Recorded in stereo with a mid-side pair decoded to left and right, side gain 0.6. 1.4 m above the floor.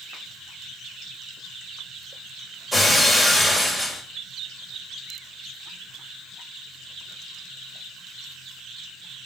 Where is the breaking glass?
5° left, 4 m.